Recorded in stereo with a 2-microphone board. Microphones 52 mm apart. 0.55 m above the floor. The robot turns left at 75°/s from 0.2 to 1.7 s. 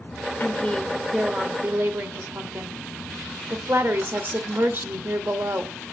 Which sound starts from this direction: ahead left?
A woman speaking, at 0.4 s.